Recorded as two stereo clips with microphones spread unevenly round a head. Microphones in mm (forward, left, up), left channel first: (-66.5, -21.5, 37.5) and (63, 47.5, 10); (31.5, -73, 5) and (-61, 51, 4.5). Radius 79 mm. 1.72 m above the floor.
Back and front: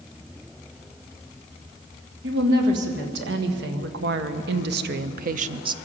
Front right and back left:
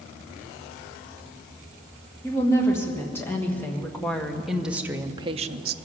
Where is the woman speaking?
20° left, 3.5 m; by 5.8 s 95° left, 0.7 m.